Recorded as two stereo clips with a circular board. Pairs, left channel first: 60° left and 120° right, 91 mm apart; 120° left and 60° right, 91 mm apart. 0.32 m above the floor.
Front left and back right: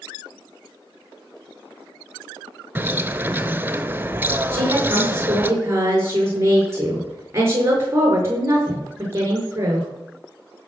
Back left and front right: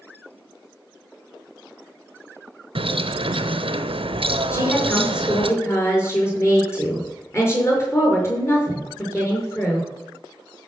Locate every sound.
2.8 s a bird: 50° right, 0.8 m
4.5 s a woman speaking: straight behind, 5.5 m